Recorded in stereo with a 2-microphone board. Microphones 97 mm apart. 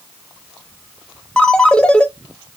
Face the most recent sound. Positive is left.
turn(degrees=10)  # may be behind; listen again after turning